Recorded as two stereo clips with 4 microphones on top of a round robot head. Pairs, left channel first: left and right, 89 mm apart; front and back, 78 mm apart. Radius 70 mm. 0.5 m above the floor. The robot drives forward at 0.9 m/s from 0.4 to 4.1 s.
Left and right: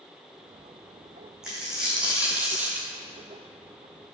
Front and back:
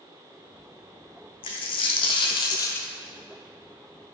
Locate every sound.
1.4 s a dropped coin: 5° right, 1.4 m; by 2.9 s 55° right, 0.5 m